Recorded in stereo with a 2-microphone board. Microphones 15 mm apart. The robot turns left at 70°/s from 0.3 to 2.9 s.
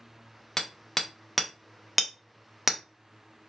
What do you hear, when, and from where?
0.6 s hammering: 20° left (ahead or behind), 0.6 m; by 2.8 s 20° right (ahead or behind), 0.6 m